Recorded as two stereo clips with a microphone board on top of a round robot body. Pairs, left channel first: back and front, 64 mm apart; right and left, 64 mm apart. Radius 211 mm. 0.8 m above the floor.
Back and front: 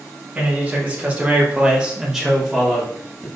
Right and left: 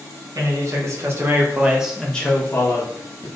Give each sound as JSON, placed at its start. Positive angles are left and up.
{"t": 0.3, "sound": "a man speaking", "azimuth_deg": 65, "distance_m": 1.6}